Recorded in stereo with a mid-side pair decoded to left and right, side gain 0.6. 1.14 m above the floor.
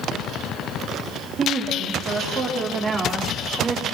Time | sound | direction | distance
1.4 | a woman speaking | 45° right | 5.5 m